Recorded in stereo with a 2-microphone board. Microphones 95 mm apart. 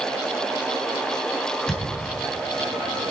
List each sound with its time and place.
1.7 s a thud: 10° left (ahead or behind), 2.5 m